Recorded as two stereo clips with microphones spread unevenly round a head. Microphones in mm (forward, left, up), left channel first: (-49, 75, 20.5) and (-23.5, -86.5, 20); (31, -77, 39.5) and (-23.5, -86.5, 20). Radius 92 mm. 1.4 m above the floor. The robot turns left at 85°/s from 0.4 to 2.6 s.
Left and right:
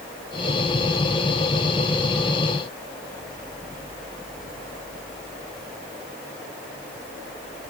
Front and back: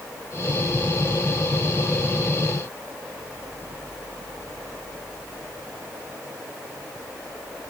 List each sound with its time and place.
Only background noise.